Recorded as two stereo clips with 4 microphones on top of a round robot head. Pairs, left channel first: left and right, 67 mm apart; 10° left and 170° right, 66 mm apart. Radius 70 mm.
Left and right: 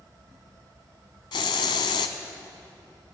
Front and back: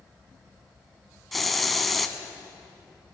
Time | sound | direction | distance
1.3 | a hiss | 95° left | 0.6 m